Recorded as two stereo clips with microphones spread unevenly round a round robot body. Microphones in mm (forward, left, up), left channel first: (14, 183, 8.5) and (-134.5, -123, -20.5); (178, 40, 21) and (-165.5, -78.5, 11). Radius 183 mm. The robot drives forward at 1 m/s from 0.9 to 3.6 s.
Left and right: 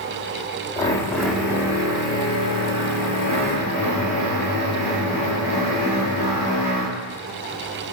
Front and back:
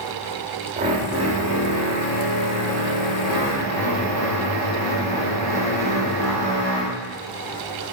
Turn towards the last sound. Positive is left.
turn(degrees=175)